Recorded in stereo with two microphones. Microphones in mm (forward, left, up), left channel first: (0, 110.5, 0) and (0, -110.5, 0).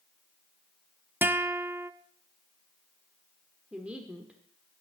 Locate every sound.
1.2 s a guitar: 10° right (ahead or behind), 0.6 m
3.7 s a woman speaking: 5° right (ahead or behind), 1.3 m